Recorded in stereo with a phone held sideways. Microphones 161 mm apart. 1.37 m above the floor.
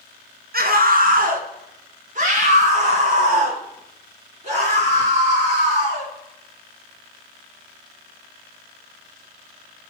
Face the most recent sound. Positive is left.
turn(degrees=-40)  # may be behind; listen again after turning